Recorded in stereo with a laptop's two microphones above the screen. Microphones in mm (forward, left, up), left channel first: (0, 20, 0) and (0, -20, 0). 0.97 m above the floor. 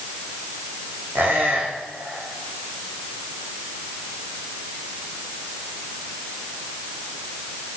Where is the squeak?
75° right (ahead or behind), 5.5 m.